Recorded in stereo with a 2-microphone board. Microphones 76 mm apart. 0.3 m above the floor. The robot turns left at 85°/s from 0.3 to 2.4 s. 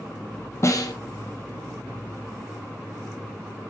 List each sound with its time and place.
0.6 s a snare drum: 40° left (ahead or behind), 1.2 m; by 0.9 s 65° left (ahead or behind), 1.2 m